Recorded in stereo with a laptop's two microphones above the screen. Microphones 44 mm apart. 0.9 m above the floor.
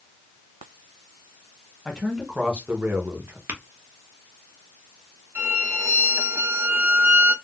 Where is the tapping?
55° right (ahead or behind), 0.9 m.